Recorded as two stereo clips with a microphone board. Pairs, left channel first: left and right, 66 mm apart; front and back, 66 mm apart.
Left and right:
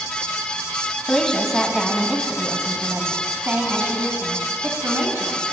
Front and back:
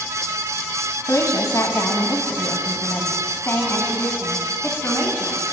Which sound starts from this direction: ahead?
A woman speaking, at 1.1 s.